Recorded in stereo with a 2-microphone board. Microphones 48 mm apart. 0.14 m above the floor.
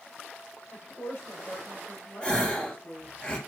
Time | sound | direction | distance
0.7 | a woman speaking | 65° left (ahead or behind) | 3.5 m
2.2 | a gasp | 20° left (ahead or behind) | 2.5 m